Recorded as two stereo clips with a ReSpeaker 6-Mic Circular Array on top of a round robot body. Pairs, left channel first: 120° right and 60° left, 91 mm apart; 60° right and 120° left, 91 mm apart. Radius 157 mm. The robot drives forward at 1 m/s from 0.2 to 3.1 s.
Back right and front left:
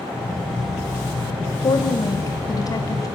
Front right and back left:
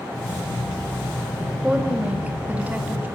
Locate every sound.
1.6 s a woman speaking: 160° right, 2.5 m; by 3.1 s 170° right, 3.5 m